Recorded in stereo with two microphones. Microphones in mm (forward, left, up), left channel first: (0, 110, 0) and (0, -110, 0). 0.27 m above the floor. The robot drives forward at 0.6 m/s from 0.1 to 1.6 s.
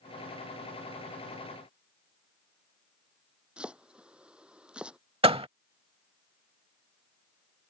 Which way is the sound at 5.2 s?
25° right (ahead or behind).